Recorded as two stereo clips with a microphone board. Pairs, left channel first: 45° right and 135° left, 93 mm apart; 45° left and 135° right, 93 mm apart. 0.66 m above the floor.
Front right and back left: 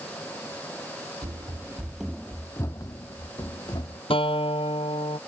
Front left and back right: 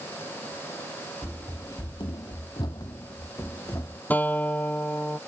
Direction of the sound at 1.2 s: 110° left.